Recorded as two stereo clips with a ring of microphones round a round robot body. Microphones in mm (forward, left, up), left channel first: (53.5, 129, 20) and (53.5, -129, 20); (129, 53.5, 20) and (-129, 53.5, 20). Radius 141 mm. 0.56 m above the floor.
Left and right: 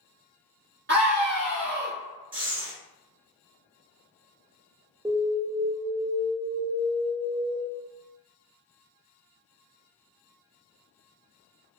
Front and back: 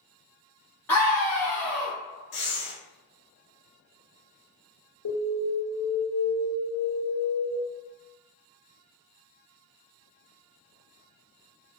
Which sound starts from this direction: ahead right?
Breathing, at 2.3 s.